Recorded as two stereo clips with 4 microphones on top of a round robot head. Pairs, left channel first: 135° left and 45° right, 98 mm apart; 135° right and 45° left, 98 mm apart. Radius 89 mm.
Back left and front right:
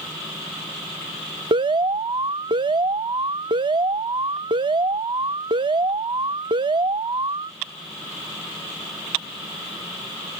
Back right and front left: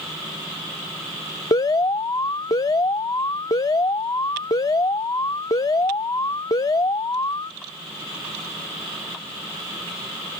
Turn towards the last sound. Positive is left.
turn(degrees=-85)